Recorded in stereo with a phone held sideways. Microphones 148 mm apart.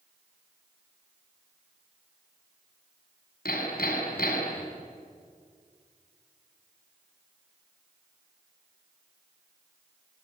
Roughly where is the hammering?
Left.